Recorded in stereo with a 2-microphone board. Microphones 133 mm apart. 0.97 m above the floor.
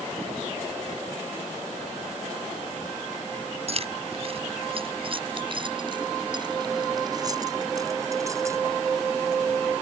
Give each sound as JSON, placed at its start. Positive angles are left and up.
{"t": 3.7, "sound": "keys jangling", "side_deg": -50}